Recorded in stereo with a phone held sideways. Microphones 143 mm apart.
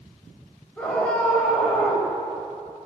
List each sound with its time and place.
0.8 s a scream: 10° left (ahead or behind), 5 m